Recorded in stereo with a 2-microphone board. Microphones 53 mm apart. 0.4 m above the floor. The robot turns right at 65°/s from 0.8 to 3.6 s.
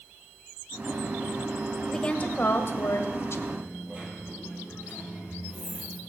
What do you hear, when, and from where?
1.9 s a woman speaking: 10° left, 1.4 m; by 3.4 s 110° left, 1.4 m
3.5 s a dropped coin: 30° right (ahead or behind), 2.5 m; by 6.0 s 25° right (ahead or behind), 2.5 m